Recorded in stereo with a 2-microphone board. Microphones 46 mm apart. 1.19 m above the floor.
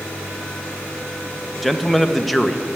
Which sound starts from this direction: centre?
A man speaking, at 1.6 s.